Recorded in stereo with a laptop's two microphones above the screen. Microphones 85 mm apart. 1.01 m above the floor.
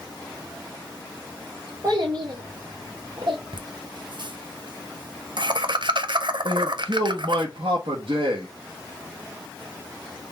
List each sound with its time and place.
1.8 s a child speaking: 50° right (ahead or behind), 1.5 m; by 3.4 s 80° right, 1.8 m
3.5 s laughter: 65° right (ahead or behind), 0.9 m
6.5 s a man speaking: 80° right, 1.0 m